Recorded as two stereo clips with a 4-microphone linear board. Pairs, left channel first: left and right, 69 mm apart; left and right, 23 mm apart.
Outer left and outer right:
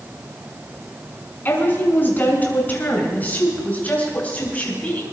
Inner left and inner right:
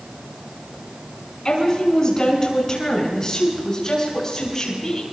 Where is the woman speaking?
30° left (ahead or behind), 5 m; by 5.0 s 20° left (ahead or behind), 6.5 m.